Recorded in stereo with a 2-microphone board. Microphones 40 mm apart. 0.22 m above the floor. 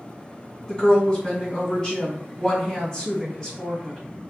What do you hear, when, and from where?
0.7 s a woman speaking: 15° left (ahead or behind), 1.4 m